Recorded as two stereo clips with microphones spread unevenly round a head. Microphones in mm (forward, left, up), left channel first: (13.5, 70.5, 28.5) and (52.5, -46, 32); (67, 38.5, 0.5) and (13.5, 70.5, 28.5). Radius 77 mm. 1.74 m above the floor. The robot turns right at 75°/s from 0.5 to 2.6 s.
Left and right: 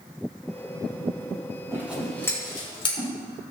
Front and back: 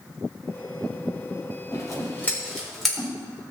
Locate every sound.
1.7 s scissors: 5° right, 5.5 m; by 3.1 s 60° left, 5.5 m